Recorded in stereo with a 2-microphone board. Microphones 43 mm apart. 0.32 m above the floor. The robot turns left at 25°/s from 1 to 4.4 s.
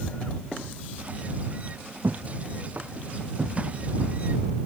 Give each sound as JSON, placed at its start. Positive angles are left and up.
{"t": 2.0, "sound": "footsteps", "side_deg": -75}